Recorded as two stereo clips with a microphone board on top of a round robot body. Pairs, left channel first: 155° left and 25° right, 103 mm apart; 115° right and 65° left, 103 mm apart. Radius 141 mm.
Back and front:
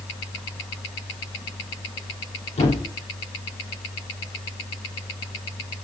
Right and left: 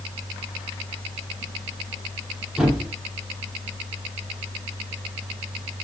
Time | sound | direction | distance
2.6 | a thud | 150° left | 8 m